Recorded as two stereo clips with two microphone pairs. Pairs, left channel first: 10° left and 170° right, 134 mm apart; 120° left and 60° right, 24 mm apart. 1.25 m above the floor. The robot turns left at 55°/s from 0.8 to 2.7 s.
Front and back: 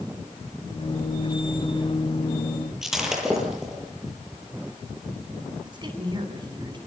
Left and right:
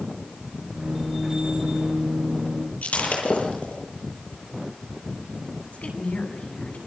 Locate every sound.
2.8 s breaking glass: 105° left, 9.5 m
5.7 s a woman speaking: 135° left, 9 m